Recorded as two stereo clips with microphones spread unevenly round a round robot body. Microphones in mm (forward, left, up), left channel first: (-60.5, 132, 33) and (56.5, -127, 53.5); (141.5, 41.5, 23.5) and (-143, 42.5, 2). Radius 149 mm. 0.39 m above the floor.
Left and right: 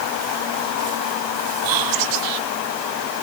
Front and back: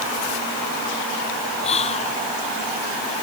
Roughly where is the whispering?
Right.